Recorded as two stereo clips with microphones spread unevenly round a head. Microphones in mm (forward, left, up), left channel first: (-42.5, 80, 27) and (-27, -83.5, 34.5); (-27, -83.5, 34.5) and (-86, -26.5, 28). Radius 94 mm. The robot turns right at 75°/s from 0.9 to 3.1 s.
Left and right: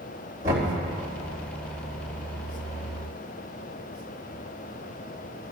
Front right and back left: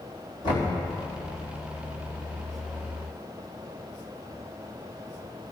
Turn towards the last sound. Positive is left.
turn(degrees=125)